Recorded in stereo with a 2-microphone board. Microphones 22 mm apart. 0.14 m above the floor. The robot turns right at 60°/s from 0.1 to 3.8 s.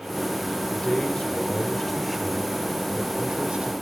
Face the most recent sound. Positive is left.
turn(degrees=-65)